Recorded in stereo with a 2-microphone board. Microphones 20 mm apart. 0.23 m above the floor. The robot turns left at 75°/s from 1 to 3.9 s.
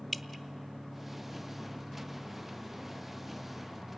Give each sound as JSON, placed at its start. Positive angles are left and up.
{"t": 0.1, "sound": "dripping", "side_deg": 0, "distance_m": 0.7}